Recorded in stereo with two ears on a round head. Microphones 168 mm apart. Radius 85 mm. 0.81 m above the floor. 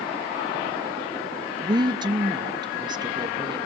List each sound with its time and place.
1.6 s a woman speaking: 25° right (ahead or behind), 0.6 m